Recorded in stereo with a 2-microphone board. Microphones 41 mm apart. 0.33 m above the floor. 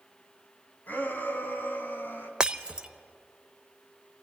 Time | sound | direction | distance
0.9 | a shout | 50° left (ahead or behind) | 3 m
2.4 | breaking glass | 20° right (ahead or behind) | 0.6 m